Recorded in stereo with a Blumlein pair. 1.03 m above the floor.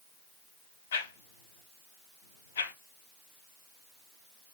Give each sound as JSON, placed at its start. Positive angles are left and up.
{"t": 0.9, "sound": "a whoosh", "azimuth_deg": 65, "distance_m": 0.6}